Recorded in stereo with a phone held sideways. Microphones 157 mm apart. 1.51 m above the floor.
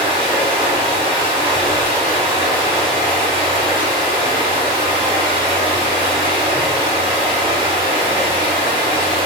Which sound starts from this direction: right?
Running water, at 0.0 s.